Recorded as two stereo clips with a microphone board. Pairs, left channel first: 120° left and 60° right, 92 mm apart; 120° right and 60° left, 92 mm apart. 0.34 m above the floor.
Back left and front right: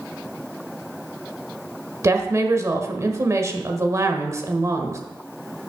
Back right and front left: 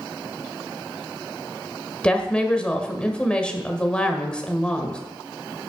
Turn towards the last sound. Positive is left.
turn(degrees=-50)